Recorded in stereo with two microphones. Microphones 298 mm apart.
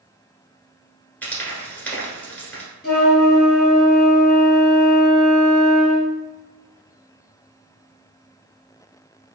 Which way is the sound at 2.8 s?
35° left (ahead or behind).